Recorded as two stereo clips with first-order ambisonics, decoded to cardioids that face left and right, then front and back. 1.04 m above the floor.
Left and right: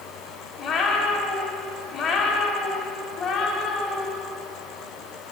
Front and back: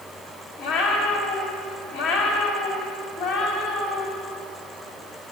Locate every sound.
0.6 s a cat meowing: 20° left, 1.7 m